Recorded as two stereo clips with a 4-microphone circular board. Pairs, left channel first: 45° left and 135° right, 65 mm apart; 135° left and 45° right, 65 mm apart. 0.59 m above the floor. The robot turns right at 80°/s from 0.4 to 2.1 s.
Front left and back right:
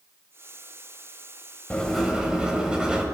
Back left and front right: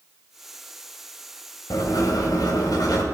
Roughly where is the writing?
Behind left.